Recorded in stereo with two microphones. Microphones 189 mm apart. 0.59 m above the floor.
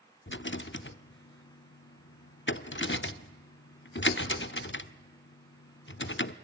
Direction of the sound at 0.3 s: 75° left (ahead or behind).